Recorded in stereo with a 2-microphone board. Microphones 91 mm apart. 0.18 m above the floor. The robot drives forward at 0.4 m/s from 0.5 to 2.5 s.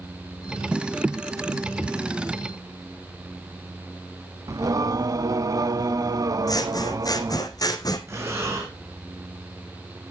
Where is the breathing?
30° right (ahead or behind), 3 m.